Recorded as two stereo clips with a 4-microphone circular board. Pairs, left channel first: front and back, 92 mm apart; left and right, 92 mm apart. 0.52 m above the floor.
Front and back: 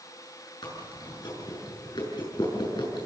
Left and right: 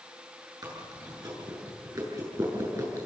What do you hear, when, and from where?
0.6 s chewing: 40° right, 6.5 m